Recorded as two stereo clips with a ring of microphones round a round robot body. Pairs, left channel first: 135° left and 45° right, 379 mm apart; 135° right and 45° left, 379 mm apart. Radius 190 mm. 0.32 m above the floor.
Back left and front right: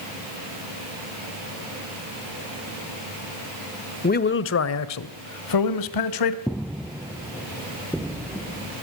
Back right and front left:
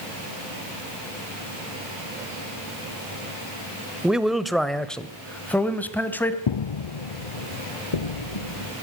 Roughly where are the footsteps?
Behind right.